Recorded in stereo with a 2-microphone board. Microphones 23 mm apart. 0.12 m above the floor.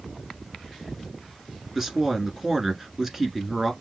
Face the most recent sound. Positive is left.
turn(degrees=-20)  # may be behind; listen again after turning